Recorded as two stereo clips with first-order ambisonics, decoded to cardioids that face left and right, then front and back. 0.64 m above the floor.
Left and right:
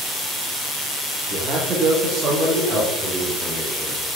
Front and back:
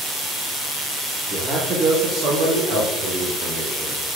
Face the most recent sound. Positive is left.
turn(degrees=-175)